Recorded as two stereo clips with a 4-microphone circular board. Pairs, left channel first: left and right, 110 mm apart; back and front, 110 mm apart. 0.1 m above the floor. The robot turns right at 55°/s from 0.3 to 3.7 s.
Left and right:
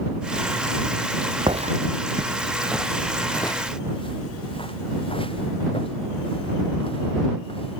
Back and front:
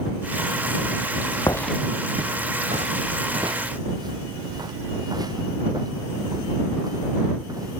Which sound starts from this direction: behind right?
Footsteps, at 1.5 s.